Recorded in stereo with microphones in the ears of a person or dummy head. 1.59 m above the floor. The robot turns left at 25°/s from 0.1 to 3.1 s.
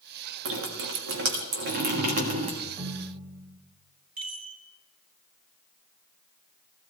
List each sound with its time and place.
0.5 s dripping: 90° right, 1.6 m; by 2.5 s 140° right, 1.6 m
2.6 s a ringtone: 20° right (ahead or behind), 1.2 m; by 3.6 s 10° right (ahead or behind), 1.2 m
4.2 s a chime: 45° right (ahead or behind), 2.5 m